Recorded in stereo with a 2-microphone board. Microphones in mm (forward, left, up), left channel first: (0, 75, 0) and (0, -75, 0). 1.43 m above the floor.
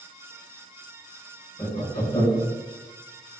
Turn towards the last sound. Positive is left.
turn(degrees=25)  # may be behind; listen again after turning